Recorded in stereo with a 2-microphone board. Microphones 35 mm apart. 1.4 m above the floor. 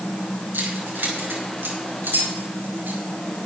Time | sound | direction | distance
0.5 | keys jangling | 80° right | 5 m